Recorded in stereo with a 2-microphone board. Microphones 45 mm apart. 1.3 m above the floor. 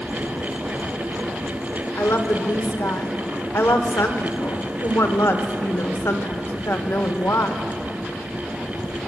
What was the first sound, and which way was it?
A woman speaking, 70° left (ahead or behind).